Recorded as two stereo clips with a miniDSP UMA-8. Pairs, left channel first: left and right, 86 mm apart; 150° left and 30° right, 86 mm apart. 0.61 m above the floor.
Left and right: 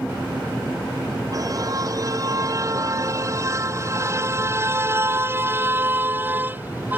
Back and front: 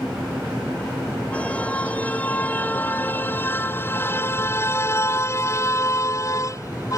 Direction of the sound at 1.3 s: 135° right.